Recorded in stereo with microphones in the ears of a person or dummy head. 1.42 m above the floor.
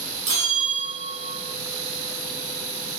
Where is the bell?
40° right (ahead or behind), 1.0 m.